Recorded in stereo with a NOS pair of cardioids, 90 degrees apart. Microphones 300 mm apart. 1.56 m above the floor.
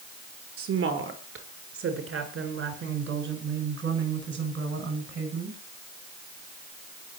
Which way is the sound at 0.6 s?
50° right.